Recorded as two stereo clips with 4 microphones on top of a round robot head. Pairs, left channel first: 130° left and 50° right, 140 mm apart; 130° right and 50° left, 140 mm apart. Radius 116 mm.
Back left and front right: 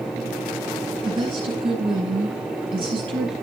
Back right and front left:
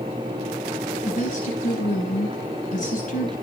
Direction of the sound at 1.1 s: 100° right.